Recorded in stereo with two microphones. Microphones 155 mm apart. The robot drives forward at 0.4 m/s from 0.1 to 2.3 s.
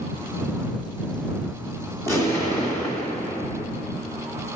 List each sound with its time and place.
2.1 s an explosion: 20° left (ahead or behind), 1.5 m; by 3.7 s 15° left (ahead or behind), 1.6 m